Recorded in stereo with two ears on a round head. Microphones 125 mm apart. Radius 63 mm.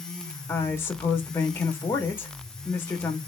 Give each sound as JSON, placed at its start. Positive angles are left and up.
{"t": 0.5, "sound": "a woman speaking", "side_deg": 15, "distance_m": 0.9}